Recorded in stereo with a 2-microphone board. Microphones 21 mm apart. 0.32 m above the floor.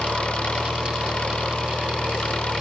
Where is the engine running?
60° left (ahead or behind).